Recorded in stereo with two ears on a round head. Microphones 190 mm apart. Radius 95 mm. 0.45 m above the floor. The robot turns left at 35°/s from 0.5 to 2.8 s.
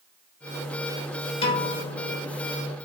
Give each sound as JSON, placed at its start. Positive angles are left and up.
{"t": 1.4, "sound": "a piano", "azimuth_deg": 150, "distance_m": 1.0}